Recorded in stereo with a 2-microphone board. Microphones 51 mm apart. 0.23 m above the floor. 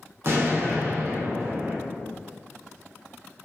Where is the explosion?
55° right (ahead or behind), 0.8 m.